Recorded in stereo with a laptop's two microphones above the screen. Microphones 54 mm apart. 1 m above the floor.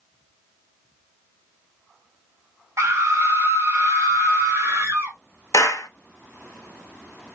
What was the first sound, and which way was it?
A scream, 50° right (ahead or behind).